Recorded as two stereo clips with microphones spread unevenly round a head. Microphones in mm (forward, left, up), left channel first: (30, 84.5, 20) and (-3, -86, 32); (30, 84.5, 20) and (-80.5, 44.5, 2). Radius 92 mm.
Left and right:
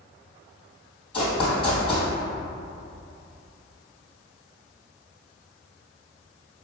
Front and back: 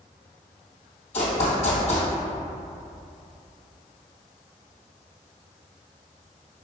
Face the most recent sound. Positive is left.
turn(degrees=15)